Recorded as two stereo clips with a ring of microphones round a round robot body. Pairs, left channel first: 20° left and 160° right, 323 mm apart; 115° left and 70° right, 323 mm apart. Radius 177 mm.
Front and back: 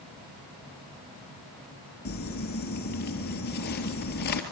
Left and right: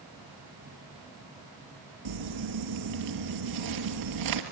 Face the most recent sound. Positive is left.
turn(degrees=-40)